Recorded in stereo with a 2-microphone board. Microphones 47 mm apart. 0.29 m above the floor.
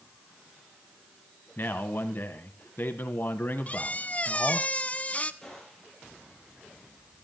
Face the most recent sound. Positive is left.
turn(degrees=10)  # may be behind; listen again after turning